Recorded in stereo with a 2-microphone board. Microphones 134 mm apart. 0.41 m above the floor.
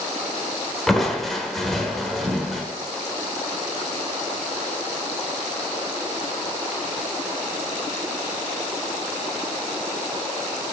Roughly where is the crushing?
Centre.